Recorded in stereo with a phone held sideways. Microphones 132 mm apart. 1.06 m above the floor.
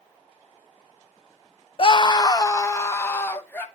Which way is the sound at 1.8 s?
45° left (ahead or behind).